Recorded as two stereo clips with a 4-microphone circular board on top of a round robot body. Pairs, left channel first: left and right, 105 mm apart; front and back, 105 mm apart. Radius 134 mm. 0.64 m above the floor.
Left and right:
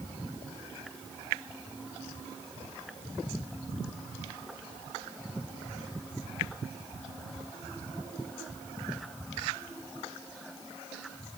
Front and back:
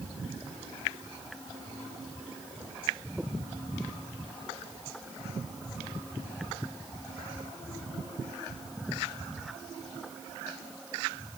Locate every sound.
Only background noise.